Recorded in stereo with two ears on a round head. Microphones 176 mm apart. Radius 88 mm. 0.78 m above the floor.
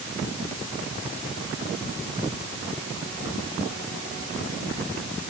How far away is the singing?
No singing in this recording.